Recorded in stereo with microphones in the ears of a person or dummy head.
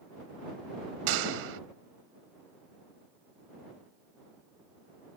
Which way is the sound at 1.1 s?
75° right (ahead or behind).